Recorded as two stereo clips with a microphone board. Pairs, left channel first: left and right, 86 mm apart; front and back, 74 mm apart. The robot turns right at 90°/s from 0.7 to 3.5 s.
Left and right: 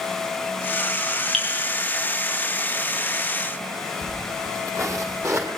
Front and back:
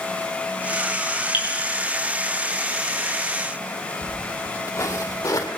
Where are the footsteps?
50° right, 1.9 m; by 5.5 s 40° right, 3 m.